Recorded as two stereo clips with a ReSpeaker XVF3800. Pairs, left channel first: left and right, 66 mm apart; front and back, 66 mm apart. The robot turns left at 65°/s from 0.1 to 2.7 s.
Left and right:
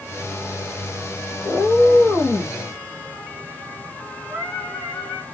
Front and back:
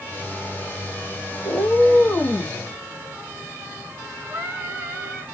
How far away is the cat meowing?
About 1.3 m.